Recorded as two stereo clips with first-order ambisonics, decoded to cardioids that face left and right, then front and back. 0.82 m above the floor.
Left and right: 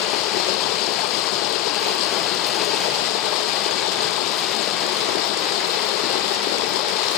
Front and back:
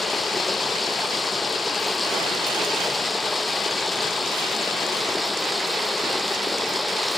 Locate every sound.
0.0 s running water: 75° left